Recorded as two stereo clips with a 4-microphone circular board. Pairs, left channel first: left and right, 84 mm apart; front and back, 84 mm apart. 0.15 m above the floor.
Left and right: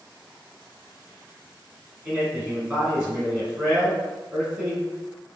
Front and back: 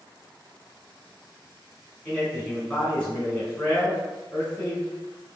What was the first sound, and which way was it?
A man speaking, 45° right.